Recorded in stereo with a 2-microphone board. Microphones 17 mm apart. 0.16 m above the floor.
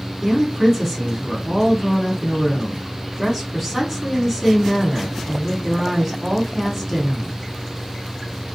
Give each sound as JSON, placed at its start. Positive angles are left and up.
{"t": 0.2, "sound": "a woman speaking", "side_deg": -20, "distance_m": 1.3}